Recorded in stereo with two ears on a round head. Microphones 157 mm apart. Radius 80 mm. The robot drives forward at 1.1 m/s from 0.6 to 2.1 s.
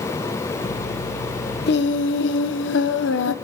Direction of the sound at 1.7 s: 60° left (ahead or behind).